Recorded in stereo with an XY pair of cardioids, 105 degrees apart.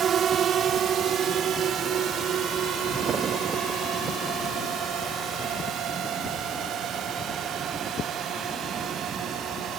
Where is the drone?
60° right; by 9.8 s 80° right.